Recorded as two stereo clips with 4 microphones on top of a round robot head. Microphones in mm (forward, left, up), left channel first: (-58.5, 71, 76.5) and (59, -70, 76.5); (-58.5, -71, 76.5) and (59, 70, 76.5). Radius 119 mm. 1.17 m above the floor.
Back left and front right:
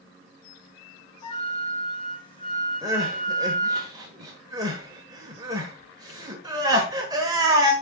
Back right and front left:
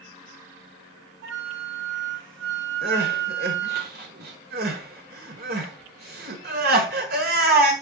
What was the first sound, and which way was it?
A flute, 65° left.